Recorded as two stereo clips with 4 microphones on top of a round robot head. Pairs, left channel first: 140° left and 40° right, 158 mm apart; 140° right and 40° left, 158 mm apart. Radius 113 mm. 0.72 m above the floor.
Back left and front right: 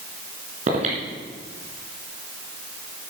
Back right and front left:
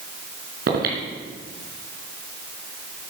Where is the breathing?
10° left, 3 m.